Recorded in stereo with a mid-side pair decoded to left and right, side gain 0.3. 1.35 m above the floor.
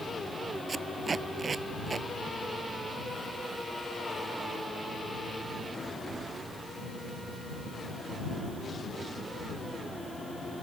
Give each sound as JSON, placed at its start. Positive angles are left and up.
{"t": 0.7, "sound": "tape being pulled", "azimuth_deg": -50}